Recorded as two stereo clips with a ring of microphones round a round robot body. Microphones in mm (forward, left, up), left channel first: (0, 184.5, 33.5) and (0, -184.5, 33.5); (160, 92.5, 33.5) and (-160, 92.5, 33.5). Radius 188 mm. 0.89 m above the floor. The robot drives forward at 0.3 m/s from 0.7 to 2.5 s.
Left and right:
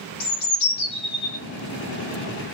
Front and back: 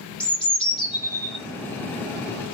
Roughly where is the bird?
Left.